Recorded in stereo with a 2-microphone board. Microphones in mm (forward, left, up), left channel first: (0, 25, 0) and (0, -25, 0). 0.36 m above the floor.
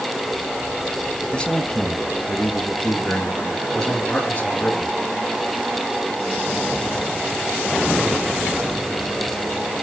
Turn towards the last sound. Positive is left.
turn(degrees=30)  # may be behind; listen again after turning